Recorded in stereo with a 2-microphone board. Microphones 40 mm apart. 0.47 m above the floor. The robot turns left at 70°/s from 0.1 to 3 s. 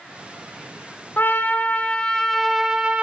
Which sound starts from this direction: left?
A trumpet, at 1.2 s.